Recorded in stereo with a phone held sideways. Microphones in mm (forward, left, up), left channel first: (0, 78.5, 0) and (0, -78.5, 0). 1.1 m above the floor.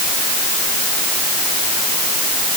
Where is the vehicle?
No vehicle in this recording.